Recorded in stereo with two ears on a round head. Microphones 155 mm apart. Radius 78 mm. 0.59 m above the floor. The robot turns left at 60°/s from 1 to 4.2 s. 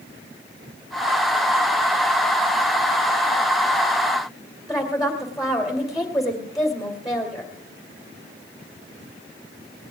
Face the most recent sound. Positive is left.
turn(degrees=0)  # may be behind; listen again after turning